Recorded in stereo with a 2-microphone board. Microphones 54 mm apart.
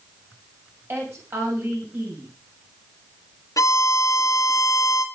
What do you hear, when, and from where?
0.9 s a woman speaking: 45° right (ahead or behind), 6.5 m
3.6 s a violin: 75° left (ahead or behind), 1.3 m